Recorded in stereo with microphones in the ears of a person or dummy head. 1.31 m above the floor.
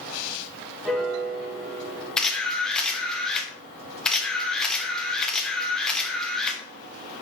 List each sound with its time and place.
0.8 s a piano: 5° right (ahead or behind), 0.9 m
2.2 s a camera shutter: 5° left (ahead or behind), 1.1 m